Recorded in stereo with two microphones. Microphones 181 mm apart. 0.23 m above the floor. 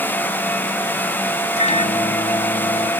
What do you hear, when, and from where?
1.6 s a microwave: 40° left (ahead or behind), 1.1 m